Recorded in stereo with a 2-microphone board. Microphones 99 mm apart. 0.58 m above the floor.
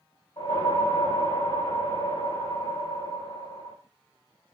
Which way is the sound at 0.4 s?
65° left (ahead or behind).